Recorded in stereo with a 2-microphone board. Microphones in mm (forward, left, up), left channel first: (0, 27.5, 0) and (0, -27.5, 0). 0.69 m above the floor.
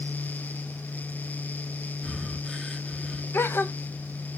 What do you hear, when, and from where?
2.0 s breathing: 10° left (ahead or behind), 0.9 m
3.3 s a gasp: 45° left (ahead or behind), 0.6 m